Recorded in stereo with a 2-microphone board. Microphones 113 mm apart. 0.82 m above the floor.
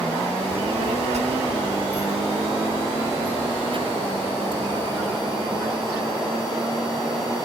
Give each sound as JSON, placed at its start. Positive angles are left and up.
{"t": 0.5, "sound": "a child speaking", "side_deg": -75}